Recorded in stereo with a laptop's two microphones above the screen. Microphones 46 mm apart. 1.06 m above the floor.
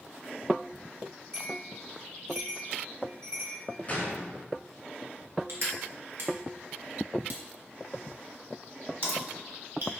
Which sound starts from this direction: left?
A gunshot, at 3.9 s.